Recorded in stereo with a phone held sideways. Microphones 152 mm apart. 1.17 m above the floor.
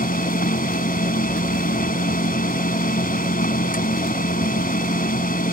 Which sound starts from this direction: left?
A machine running, at 0.0 s.